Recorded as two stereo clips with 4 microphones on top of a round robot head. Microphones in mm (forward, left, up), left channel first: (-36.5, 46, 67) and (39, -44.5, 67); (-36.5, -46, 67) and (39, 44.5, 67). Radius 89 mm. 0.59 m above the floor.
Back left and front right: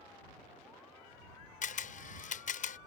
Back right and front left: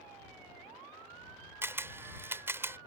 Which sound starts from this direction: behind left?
A camera shutter, at 1.6 s.